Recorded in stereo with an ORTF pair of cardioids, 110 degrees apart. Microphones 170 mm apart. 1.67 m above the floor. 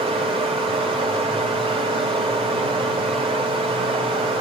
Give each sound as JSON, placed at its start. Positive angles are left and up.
{"t": 0.0, "sound": "running water", "azimuth_deg": -30, "distance_m": 3.0}